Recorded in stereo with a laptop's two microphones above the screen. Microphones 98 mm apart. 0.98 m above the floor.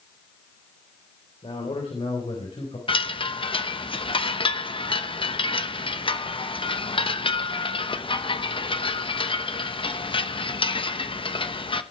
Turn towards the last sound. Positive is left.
turn(degrees=60)  # may be behind; listen again after turning